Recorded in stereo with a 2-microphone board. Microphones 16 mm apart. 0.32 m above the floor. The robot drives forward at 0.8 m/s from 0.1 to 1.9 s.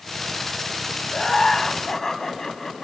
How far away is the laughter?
About 2.5 m.